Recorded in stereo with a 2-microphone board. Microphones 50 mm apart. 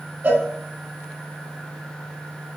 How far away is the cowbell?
About 0.7 m.